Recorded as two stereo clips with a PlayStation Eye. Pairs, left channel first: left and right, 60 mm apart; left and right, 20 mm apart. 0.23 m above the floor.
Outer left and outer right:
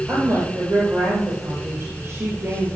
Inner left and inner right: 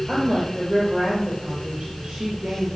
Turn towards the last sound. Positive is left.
turn(degrees=-40)  # may be behind; listen again after turning